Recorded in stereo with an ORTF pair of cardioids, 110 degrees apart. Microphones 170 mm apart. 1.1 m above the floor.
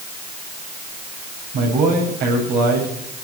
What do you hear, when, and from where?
1.5 s a man speaking: 70° right, 7.5 m